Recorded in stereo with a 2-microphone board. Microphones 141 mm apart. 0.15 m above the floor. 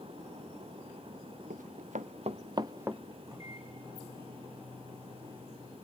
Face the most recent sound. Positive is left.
turn(degrees=-25)  # may be behind; listen again after turning